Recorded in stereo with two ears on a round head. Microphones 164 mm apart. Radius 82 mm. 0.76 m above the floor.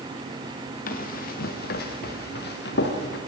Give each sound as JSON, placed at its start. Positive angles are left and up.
{"t": 0.9, "sound": "running footsteps", "side_deg": 50, "distance_m": 4.5}